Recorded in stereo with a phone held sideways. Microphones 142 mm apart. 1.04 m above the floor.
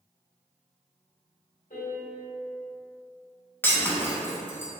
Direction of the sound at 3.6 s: 15° left (ahead or behind).